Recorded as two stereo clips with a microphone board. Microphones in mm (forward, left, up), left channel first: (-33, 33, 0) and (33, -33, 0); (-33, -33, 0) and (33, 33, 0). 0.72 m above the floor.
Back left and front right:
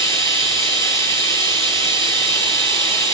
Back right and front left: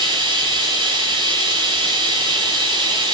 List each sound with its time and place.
0.0 s running water: 80° left, 6.5 m